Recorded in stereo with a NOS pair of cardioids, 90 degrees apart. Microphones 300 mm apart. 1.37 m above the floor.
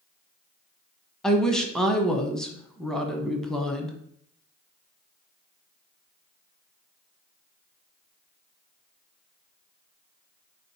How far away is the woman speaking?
About 0.9 m.